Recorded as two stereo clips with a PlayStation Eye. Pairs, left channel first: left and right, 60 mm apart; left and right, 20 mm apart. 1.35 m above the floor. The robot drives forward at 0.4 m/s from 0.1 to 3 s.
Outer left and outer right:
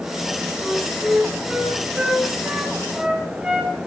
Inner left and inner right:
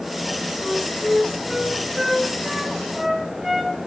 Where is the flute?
20° right (ahead or behind), 5 m; by 3.8 s 15° right (ahead or behind), 5.5 m.